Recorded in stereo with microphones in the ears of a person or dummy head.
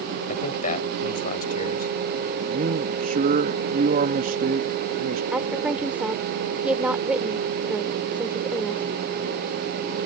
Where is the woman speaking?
5° right (ahead or behind).